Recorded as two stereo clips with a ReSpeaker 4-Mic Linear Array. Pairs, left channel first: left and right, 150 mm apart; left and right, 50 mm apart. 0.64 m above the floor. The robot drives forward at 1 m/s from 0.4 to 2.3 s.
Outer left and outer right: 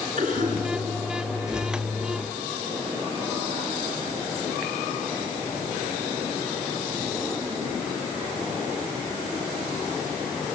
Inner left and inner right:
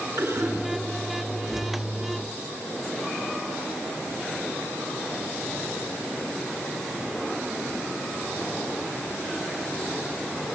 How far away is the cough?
About 7 m.